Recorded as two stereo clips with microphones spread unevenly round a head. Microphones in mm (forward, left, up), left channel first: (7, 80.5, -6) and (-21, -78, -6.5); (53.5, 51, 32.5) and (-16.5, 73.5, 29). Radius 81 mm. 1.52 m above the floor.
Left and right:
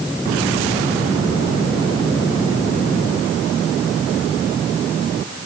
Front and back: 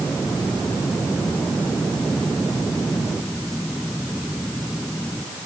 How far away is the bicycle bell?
No bicycle bell in this recording.